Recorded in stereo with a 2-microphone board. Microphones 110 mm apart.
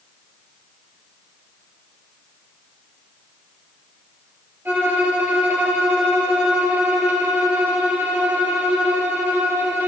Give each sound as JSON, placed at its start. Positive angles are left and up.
{"t": 4.7, "sound": "a violin", "side_deg": -15, "distance_m": 2.0}